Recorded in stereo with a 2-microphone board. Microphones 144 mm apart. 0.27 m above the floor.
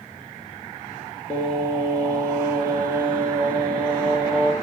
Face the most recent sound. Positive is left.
turn(degrees=10)  # may be behind; listen again after turning